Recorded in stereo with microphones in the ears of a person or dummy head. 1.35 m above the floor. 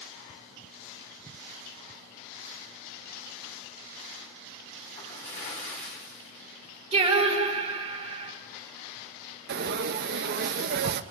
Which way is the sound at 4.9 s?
40° left (ahead or behind).